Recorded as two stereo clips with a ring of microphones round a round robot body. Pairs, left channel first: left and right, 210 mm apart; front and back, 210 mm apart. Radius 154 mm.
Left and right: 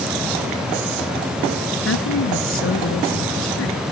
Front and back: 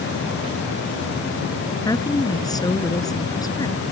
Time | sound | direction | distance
1.9 | a woman speaking | 75° left | ?